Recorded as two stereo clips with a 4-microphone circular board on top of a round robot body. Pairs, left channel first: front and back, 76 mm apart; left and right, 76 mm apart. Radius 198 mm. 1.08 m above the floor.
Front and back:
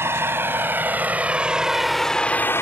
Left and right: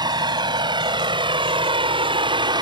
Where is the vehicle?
120° right; by 2.6 s 60° right.